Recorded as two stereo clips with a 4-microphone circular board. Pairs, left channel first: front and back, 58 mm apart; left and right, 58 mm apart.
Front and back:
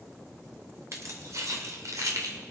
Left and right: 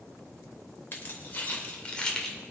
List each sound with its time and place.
0.9 s keys jangling: 145° left, 2.5 m; by 2.4 s 170° left, 2 m